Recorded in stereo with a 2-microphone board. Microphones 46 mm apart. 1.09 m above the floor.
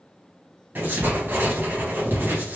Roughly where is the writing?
Right.